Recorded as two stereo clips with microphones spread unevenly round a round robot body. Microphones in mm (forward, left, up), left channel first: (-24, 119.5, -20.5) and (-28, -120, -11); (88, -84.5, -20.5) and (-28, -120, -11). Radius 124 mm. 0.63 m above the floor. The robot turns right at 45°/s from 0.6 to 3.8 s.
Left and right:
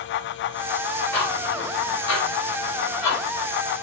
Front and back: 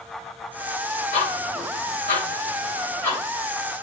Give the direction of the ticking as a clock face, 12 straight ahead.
12 o'clock.